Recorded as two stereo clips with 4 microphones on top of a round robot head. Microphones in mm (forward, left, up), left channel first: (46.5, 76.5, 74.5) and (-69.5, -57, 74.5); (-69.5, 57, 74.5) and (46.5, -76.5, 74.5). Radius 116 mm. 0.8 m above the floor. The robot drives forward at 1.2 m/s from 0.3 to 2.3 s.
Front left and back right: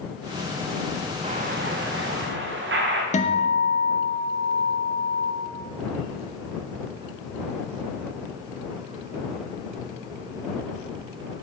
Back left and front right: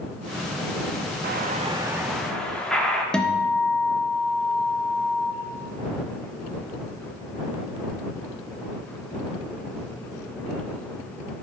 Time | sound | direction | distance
1.2 | an explosion | 75° right | 0.8 m
3.1 | a guitar | 45° left | 1.0 m